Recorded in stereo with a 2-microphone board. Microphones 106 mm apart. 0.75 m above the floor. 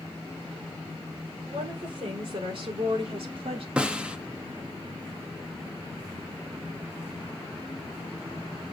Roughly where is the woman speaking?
Right.